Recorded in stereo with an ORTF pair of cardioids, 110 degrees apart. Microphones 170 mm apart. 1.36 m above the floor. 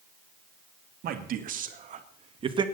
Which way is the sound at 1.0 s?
60° right.